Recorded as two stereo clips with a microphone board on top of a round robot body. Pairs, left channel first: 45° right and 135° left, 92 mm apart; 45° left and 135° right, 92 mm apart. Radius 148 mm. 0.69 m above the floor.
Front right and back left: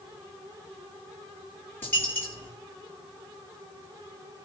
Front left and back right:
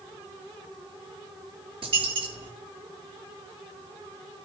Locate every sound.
1.8 s a dropped coin: 115° right, 7 m